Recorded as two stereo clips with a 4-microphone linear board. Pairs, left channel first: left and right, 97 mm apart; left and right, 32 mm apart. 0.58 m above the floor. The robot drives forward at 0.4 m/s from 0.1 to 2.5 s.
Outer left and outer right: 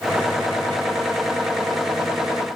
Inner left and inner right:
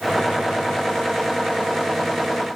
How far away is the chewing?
No chewing in this recording.